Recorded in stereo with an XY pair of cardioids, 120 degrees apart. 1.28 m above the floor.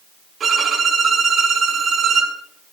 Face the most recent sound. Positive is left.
turn(degrees=-45)